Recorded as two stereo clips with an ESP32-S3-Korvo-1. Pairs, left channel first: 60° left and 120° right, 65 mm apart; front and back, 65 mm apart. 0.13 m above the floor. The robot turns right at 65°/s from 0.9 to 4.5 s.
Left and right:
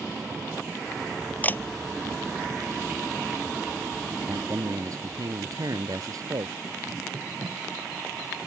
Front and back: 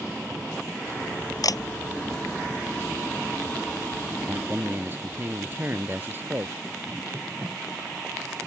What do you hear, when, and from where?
1.4 s a camera shutter: 5° right; by 1.6 s 10° left
4.3 s a man speaking: 140° right; by 6.5 s 125° right